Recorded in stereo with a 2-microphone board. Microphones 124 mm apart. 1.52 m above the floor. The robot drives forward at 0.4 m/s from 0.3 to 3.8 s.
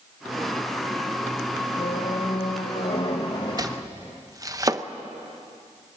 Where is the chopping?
30° right (ahead or behind), 0.8 m.